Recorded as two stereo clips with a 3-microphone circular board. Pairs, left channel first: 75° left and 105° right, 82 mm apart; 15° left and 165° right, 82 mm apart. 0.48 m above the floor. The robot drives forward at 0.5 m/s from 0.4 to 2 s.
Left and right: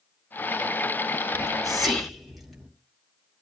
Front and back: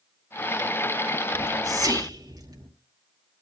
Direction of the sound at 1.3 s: 165° left.